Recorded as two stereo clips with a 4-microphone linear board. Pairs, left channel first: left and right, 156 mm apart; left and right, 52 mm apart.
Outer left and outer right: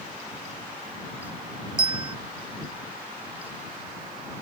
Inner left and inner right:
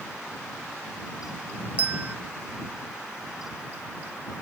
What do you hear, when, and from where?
1.8 s a bell: 30° right (ahead or behind)